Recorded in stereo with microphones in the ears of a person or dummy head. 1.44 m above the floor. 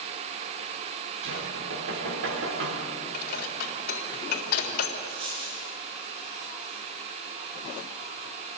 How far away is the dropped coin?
About 10 m.